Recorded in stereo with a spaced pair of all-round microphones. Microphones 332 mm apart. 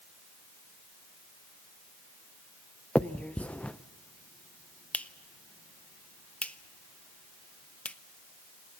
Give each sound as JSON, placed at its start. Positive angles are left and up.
{"t": 3.0, "sound": "a finger snap", "side_deg": 5, "distance_m": 0.5}